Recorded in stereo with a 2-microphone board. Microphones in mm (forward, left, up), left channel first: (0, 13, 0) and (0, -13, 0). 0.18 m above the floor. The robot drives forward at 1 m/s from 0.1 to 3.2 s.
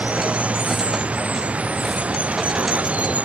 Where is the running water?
65° right (ahead or behind).